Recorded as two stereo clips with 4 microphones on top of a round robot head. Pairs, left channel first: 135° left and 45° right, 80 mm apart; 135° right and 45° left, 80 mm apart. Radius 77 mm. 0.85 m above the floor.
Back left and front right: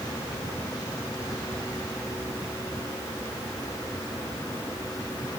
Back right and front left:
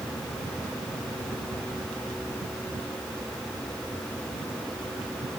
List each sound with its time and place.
Only background noise.